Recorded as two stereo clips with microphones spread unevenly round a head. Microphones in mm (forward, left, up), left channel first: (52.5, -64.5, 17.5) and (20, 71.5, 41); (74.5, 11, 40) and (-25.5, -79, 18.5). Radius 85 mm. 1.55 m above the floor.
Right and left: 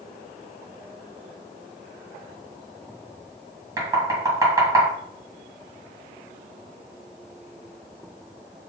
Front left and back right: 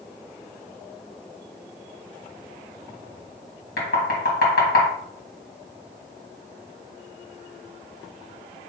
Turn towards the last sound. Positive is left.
turn(degrees=40)